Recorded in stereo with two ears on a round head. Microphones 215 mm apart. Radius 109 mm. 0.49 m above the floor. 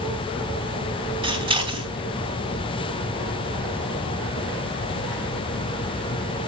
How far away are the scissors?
About 3.5 m.